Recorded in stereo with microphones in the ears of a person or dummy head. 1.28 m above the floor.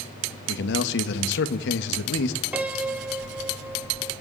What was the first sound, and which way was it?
A man speaking, 65° left (ahead or behind).